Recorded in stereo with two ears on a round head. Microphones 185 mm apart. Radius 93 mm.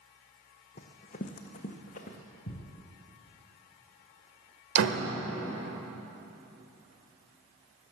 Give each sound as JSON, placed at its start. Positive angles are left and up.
{"t": 0.8, "sound": "running footsteps", "side_deg": 40, "distance_m": 1.2}
{"t": 2.5, "sound": "a thud", "side_deg": 80, "distance_m": 1.7}
{"t": 4.8, "sound": "a door slam", "side_deg": -65, "distance_m": 1.2}